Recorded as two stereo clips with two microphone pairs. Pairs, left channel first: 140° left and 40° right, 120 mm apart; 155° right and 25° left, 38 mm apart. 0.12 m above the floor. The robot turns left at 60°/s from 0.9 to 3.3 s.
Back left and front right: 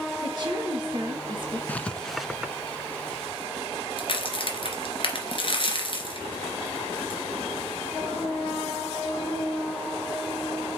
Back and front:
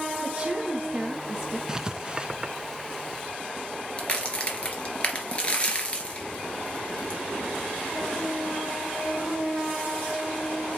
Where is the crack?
155° left, 2 m.